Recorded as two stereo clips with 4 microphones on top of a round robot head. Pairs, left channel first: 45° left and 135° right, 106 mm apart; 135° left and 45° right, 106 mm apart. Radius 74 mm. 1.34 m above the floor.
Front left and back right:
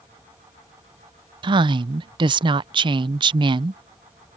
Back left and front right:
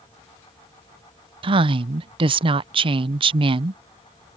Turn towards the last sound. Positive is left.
turn(degrees=-90)